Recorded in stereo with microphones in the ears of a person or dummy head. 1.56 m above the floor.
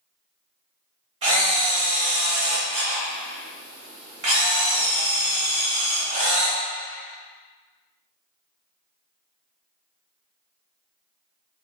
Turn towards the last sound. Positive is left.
turn(degrees=-35)  # may be behind; listen again after turning